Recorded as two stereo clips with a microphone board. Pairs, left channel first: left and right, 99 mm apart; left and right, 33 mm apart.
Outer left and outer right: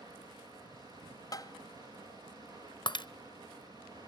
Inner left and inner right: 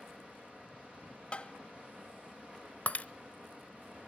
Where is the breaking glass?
50° left (ahead or behind), 0.5 m.